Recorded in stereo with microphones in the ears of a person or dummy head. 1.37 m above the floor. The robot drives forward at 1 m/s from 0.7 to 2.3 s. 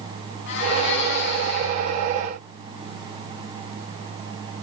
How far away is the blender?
About 8 m.